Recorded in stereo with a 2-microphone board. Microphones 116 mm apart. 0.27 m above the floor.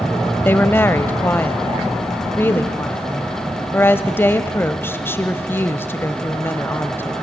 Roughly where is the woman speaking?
Centre.